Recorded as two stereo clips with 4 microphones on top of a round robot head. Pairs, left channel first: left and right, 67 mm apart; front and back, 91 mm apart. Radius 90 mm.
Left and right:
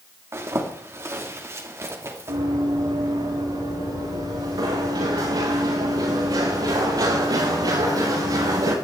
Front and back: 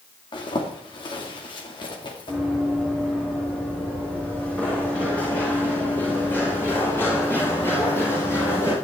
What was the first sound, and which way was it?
A zipper, 40° right.